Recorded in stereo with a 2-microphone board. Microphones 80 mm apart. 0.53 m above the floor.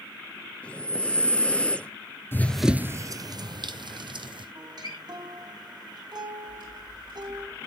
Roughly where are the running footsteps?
Left.